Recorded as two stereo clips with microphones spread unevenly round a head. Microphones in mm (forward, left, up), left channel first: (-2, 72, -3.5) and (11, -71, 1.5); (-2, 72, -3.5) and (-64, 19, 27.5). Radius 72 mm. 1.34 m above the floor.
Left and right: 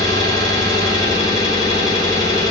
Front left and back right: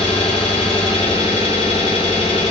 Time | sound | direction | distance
0.0 | an engine running | 30° left | 1.3 m